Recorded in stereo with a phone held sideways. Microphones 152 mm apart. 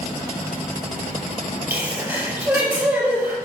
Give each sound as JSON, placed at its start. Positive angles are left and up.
{"t": 1.7, "sound": "a sneeze", "side_deg": -10, "distance_m": 4.5}